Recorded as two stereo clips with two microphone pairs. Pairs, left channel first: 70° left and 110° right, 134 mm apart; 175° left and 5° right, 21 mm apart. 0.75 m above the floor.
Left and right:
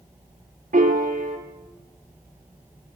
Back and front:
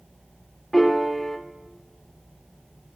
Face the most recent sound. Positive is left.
turn(degrees=-110)